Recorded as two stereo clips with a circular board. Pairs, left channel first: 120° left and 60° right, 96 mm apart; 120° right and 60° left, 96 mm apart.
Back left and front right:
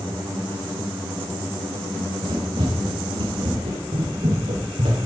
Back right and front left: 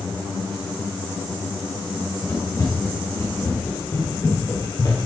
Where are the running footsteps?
60° right, 6.5 m; by 5.0 s 70° right, 5.5 m.